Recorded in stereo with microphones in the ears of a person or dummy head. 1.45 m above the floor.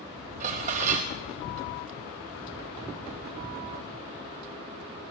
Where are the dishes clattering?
40° right (ahead or behind), 1.0 m.